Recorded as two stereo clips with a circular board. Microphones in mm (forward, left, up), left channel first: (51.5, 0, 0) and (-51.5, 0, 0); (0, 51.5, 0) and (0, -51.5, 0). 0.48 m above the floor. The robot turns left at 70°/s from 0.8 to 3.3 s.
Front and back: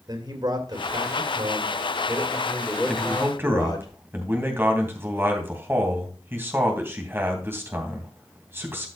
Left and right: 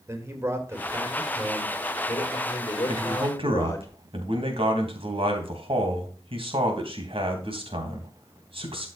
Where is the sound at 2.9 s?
80° right, 2.5 m; by 8.9 s 110° right, 2.5 m.